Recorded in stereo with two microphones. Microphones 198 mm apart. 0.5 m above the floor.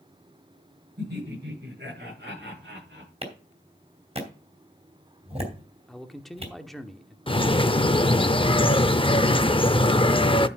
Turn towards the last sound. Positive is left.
turn(degrees=25)  # may be behind; listen again after turning